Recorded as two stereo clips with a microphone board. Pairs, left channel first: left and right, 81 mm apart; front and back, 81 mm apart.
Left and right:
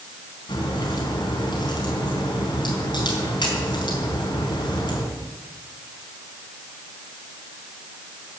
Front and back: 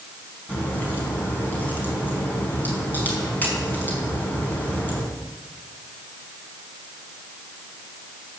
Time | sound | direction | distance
0.5 | a crack | 65° left | 4 m